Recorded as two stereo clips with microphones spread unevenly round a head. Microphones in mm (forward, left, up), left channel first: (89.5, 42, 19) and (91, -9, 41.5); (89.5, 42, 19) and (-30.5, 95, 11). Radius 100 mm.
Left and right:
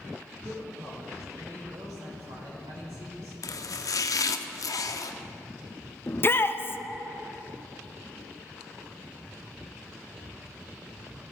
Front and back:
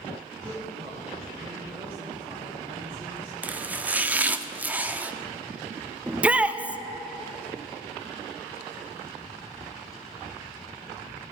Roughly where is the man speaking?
Behind right.